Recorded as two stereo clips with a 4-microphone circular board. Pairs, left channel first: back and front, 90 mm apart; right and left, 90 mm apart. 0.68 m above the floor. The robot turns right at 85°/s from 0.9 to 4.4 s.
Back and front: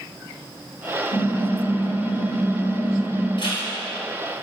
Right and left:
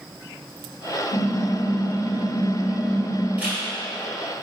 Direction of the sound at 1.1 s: 140° right.